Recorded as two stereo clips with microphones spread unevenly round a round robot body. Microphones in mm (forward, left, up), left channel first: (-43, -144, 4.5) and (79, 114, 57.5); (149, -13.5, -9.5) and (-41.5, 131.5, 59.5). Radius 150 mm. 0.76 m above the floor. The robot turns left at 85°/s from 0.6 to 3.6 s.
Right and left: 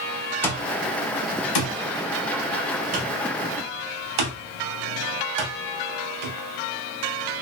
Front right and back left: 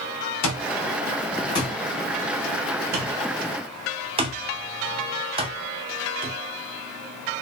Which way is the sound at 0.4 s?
30° right.